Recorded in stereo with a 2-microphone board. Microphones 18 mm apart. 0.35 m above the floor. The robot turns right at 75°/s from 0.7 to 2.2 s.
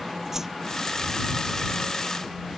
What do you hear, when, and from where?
0.3 s a whoosh: 30° right (ahead or behind)